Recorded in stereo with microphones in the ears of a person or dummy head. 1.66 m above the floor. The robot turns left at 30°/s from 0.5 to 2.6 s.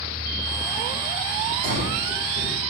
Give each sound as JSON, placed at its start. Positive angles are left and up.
{"t": 1.6, "sound": "breathing", "side_deg": 40, "distance_m": 6.5}